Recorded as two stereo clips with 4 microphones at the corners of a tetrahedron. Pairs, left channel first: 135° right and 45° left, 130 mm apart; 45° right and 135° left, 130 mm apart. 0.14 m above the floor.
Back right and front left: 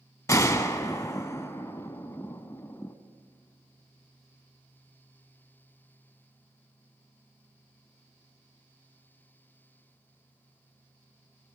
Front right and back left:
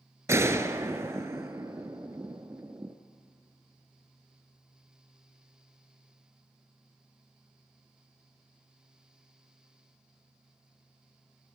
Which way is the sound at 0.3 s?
Straight behind.